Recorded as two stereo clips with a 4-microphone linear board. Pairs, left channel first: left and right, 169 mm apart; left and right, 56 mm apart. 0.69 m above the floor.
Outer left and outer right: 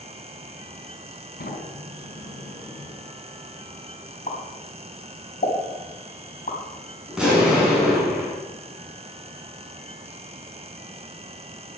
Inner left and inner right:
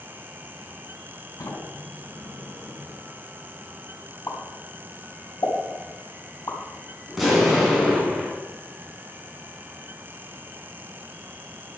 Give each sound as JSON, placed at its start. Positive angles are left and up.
{"t": 1.4, "sound": "a sliding door", "side_deg": 80, "distance_m": 5.0}
{"t": 4.3, "sound": "a pop", "side_deg": 55, "distance_m": 3.5}
{"t": 7.1, "sound": "an explosion", "side_deg": -5, "distance_m": 5.5}